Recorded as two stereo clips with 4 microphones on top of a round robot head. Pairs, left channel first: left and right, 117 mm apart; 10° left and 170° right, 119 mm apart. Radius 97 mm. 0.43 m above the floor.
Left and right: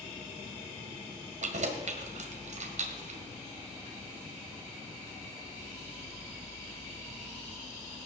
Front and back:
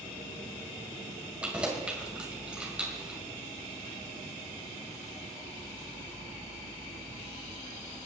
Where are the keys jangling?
90° right, 1.9 m.